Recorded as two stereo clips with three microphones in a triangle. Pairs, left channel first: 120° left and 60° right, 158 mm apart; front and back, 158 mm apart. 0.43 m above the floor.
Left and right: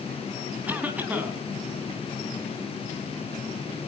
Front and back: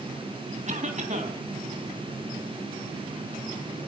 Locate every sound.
0.7 s a cough: 140° right, 3 m